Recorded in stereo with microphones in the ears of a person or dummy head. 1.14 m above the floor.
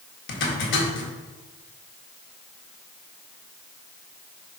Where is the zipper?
65° left (ahead or behind), 1.7 m.